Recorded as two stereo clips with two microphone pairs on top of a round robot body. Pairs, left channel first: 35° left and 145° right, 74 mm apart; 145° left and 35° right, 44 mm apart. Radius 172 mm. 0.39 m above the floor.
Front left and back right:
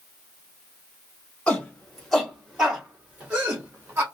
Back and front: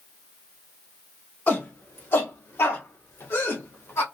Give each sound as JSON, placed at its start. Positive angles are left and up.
{"t": 1.5, "sound": "a shout", "azimuth_deg": 110, "distance_m": 2.0}